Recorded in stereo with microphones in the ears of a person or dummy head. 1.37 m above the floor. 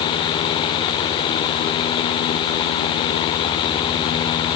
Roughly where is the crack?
No crack in this recording.